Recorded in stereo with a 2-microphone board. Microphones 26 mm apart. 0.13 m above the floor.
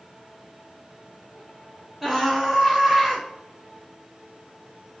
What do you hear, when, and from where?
2.0 s a scream: 10° right (ahead or behind), 1.0 m